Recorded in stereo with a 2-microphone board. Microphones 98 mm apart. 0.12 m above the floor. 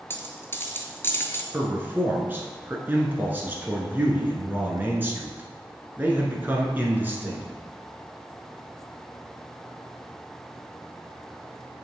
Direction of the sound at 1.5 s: 20° right (ahead or behind).